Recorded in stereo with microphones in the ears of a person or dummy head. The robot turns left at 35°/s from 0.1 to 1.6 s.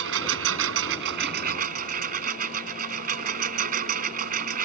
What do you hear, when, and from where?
0.0 s a lawn mower: 80° right; by 4.7 s 130° right